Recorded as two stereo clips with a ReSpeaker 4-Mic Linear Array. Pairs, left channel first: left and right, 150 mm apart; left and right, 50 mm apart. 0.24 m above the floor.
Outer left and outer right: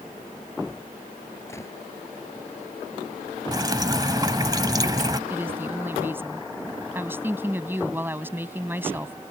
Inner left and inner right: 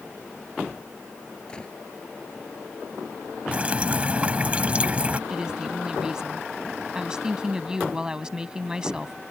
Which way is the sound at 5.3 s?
15° right (ahead or behind).